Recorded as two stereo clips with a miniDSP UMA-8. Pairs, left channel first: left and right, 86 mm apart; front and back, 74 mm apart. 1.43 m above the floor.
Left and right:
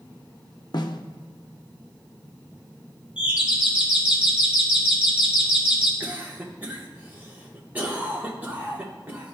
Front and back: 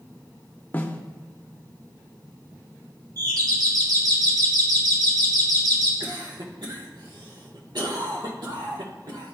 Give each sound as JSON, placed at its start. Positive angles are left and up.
{"t": 0.7, "sound": "a snare drum", "azimuth_deg": 65, "distance_m": 0.5}
{"t": 3.2, "sound": "a doorbell", "azimuth_deg": -165, "distance_m": 1.7}
{"t": 6.0, "sound": "a cough", "azimuth_deg": -160, "distance_m": 1.4}